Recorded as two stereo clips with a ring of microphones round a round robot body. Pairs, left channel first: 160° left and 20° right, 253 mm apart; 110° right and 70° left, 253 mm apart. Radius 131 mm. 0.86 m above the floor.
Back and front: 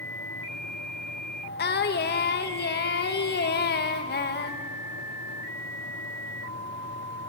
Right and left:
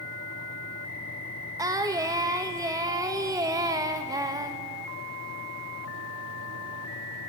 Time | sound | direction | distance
1.6 | singing | 135° left | 1.2 m